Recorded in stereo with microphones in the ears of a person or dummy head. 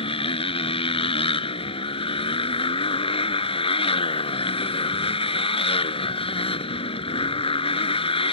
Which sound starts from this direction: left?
A motorcycle, at 0.0 s.